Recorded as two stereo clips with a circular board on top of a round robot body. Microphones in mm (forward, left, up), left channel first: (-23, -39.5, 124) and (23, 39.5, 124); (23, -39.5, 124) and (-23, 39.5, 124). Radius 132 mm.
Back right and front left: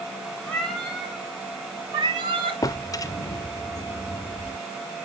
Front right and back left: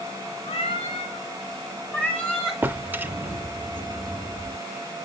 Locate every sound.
0.5 s a cat meowing: 40° right, 2 m; by 2.6 s 30° left, 1.9 m
2.6 s a drawer: 170° right, 0.6 m